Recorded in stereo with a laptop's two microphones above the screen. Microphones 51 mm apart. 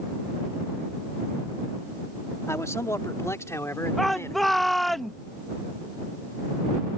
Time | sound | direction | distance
2.5 | a man speaking | 70° left (ahead or behind) | ?
4.0 | a shout | 5° left (ahead or behind) | ?